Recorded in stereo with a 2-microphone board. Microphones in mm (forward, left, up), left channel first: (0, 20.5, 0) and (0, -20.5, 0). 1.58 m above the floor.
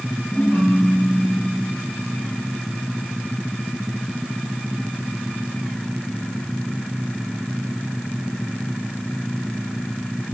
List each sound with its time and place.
0.3 s a ringtone: 65° left (ahead or behind), 2.5 m